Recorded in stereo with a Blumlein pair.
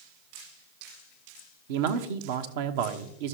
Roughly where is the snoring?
No snoring in this recording.